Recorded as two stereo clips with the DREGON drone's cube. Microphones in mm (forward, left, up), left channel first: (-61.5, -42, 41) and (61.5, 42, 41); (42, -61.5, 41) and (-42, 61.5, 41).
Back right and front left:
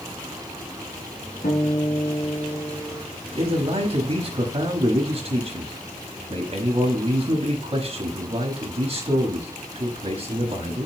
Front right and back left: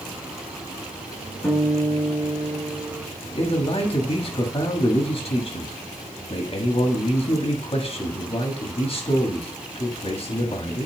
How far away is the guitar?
About 3.5 m.